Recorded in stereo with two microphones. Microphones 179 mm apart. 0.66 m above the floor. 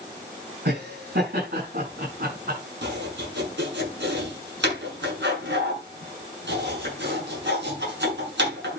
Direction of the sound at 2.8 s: 85° right.